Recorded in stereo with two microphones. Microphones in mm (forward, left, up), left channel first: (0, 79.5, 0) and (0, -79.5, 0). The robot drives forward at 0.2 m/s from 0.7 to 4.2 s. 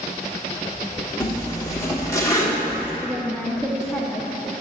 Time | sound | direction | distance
1.2 | a zipper | 20° left (ahead or behind) | 1.2 m
3.0 | a woman speaking | 5° left (ahead or behind) | 0.5 m